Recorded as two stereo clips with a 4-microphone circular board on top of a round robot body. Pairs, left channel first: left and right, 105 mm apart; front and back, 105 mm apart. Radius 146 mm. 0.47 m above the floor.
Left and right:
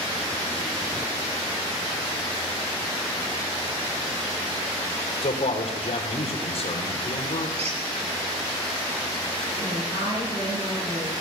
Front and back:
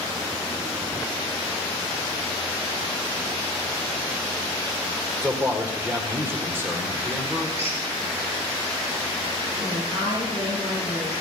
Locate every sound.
5.2 s a man speaking: 110° left, 2.5 m
7.6 s a squeak: 115° right, 5 m
9.6 s a woman speaking: 50° right, 9 m